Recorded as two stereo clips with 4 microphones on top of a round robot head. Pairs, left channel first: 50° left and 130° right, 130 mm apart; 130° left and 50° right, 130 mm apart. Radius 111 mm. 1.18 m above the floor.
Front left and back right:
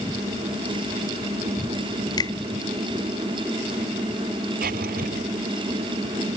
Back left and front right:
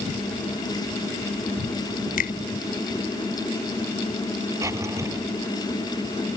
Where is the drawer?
120° right.